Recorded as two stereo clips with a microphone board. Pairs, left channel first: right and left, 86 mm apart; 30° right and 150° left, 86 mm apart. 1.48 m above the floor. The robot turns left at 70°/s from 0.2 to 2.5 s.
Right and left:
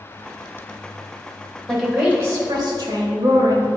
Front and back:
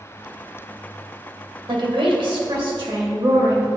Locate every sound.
1.7 s a woman speaking: 175° right, 1.8 m; by 3.7 s 130° left, 1.8 m